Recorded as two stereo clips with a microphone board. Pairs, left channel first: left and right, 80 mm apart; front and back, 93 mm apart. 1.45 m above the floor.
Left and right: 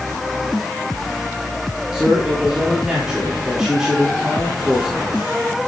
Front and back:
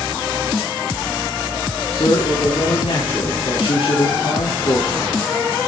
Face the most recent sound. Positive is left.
turn(degrees=-5)